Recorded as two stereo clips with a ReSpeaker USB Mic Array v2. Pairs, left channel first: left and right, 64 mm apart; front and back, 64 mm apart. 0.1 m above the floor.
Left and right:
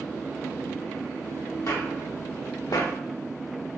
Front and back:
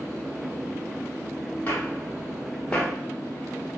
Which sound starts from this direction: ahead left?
Footsteps, at 1.7 s.